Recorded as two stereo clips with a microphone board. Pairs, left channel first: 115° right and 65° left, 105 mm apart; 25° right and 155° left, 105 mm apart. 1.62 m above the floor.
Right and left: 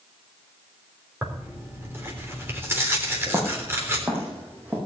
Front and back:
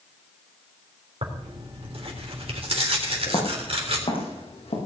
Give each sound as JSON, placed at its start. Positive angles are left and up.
{"t": 1.2, "sound": "tearing paper", "azimuth_deg": 135, "distance_m": 3.5}
{"t": 3.3, "sound": "footsteps", "azimuth_deg": 10, "distance_m": 5.5}